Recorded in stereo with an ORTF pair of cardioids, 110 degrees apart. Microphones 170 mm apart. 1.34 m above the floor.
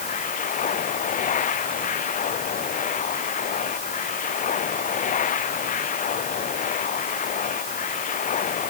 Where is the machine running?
50° left.